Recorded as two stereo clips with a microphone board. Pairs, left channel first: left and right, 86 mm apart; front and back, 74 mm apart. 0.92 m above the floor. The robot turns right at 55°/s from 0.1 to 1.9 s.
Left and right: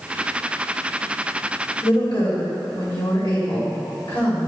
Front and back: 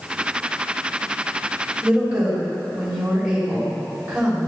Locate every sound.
1.8 s a woman speaking: 100° left, 3 m; by 4.5 s 105° left, 3 m